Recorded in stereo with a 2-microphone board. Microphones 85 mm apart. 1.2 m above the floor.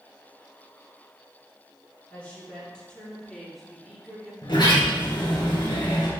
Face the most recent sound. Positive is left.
turn(degrees=70)  # may be behind; listen again after turning